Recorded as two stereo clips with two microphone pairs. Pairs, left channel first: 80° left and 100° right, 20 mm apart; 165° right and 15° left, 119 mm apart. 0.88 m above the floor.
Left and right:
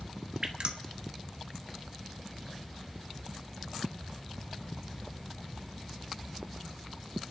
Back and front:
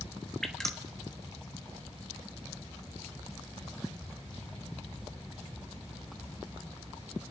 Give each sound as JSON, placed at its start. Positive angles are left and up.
{"t": 0.4, "sound": "dripping", "azimuth_deg": -80, "distance_m": 1.2}